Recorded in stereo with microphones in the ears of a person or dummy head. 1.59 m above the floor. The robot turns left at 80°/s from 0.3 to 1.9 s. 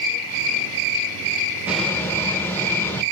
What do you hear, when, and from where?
1.7 s a bird: 5° right (ahead or behind), 0.6 m; by 3.0 s 15° left (ahead or behind), 0.6 m